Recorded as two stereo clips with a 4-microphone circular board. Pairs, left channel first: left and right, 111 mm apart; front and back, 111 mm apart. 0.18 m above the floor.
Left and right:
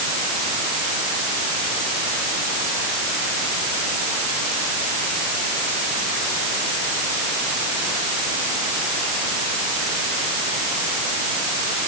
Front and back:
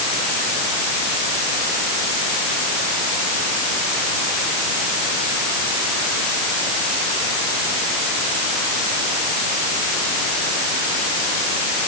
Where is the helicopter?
No helicopter in this recording.